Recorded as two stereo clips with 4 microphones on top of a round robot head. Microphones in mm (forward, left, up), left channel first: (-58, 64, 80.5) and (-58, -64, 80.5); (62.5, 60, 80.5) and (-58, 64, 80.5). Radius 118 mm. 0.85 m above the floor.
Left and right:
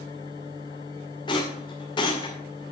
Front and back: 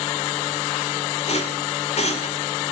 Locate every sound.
1.3 s a rattle: 30° left, 2.5 m